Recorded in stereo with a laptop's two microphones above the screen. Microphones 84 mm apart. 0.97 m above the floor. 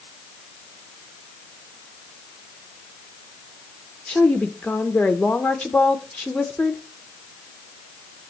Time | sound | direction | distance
4.1 | a woman speaking | 10° left (ahead or behind) | 0.8 m